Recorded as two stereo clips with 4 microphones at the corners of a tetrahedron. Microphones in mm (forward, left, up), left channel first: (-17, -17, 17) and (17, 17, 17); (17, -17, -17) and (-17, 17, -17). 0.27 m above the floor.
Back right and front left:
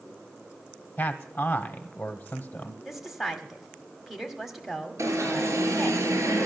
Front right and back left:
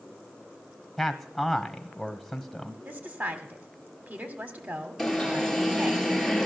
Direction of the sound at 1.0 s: 135° right.